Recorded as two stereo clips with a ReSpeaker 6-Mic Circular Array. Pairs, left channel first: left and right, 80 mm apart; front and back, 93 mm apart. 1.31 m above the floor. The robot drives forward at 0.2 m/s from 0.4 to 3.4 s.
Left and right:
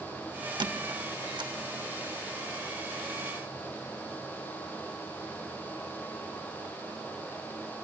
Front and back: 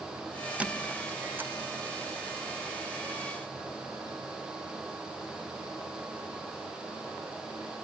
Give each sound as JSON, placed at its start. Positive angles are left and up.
{"t": 0.6, "sound": "a squeak", "azimuth_deg": -105, "distance_m": 1.1}